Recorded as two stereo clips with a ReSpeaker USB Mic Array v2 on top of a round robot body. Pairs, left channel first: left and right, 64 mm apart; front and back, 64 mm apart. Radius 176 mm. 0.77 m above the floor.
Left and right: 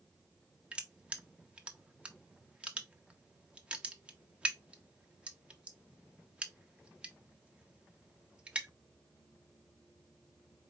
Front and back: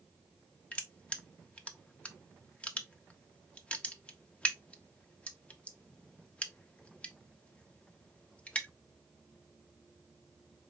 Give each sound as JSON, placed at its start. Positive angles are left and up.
{"t": 0.7, "sound": "crushing", "azimuth_deg": -45, "distance_m": 1.0}